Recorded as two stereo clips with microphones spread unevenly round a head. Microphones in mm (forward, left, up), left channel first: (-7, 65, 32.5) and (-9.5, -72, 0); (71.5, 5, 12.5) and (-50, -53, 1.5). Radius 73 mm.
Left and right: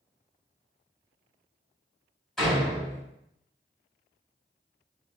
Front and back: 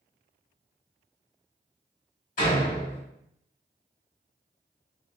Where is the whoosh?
I don't hear a whoosh.